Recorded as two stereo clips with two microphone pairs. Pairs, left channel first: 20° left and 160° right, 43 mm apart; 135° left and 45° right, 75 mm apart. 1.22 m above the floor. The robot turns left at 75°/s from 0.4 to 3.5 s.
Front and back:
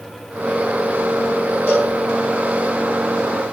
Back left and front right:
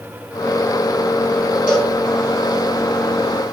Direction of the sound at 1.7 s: 125° right.